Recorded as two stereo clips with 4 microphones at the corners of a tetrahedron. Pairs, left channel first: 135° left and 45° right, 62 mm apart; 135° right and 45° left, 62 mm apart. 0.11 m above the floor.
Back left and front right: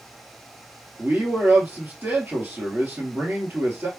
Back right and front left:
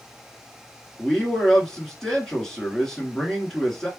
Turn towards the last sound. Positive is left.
turn(degrees=-60)